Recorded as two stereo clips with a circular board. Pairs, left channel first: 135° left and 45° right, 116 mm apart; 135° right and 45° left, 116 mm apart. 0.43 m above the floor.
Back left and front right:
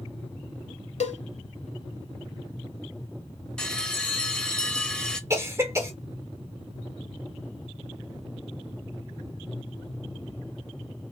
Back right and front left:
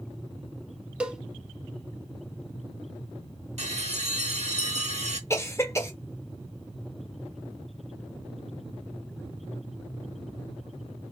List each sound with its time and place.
1.0 s a cowbell: 125° left, 0.7 m
3.6 s a bell: 50° left, 0.7 m
5.3 s a cough: 90° right, 1.0 m